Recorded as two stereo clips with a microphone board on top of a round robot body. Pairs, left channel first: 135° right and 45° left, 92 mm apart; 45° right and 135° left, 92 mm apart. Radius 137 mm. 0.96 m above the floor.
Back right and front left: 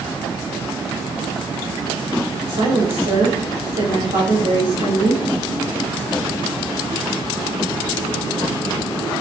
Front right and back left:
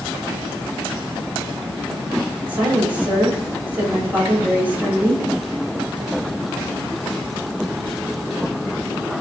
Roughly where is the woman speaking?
Ahead left.